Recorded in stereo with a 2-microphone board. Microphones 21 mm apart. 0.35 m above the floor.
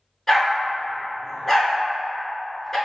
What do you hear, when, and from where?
0.3 s a dog barking: 15° left (ahead or behind), 1.2 m